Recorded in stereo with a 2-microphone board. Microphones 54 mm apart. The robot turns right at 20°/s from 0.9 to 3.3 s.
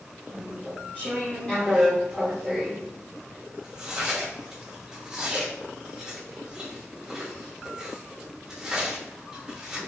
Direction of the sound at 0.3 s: 30° left (ahead or behind).